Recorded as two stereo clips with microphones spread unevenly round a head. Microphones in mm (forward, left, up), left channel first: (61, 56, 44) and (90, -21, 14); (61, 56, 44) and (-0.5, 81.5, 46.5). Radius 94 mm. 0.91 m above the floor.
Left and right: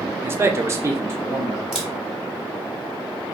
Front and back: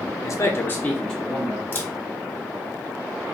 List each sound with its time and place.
0.2 s a man speaking: 30° right, 0.6 m; by 1.6 s 120° right, 0.8 m
1.7 s a camera shutter: 25° right, 1.0 m